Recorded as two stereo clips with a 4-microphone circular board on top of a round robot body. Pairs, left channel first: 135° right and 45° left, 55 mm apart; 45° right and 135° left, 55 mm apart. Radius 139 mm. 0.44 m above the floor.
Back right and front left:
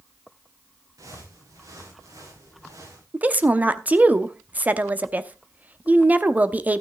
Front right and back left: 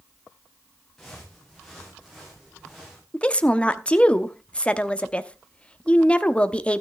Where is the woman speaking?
5° left, 1.1 m.